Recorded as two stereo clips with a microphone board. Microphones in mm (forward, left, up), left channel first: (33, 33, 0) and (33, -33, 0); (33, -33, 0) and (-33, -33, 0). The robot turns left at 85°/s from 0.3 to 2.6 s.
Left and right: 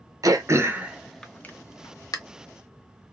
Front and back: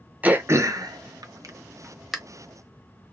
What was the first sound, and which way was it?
Throat clearing, 110° right.